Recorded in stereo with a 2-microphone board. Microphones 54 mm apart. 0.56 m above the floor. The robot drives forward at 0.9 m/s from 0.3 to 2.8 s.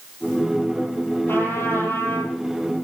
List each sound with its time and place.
1.3 s a trumpet: 40° left (ahead or behind), 8 m; by 2.3 s 45° left (ahead or behind), 7.5 m